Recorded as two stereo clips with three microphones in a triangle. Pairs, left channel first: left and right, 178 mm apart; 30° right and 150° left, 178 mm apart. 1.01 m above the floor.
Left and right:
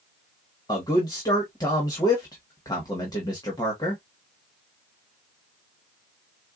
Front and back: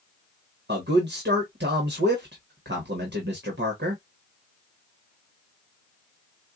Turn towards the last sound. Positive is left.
turn(degrees=155)